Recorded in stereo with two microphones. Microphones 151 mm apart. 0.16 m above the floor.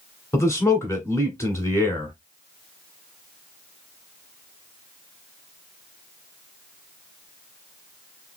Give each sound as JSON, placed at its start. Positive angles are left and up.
{"t": 0.3, "sound": "a man speaking", "side_deg": 20, "distance_m": 1.5}